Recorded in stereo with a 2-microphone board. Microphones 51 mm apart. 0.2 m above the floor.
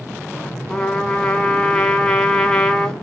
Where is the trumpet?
15° left (ahead or behind), 0.6 m.